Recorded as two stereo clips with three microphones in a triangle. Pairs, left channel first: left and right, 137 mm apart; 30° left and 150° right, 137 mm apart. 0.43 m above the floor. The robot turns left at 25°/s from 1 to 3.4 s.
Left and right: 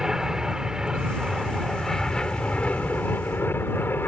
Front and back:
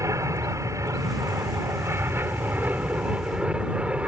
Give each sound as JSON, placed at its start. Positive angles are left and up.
{"t": 0.0, "sound": "an aircraft", "azimuth_deg": -170}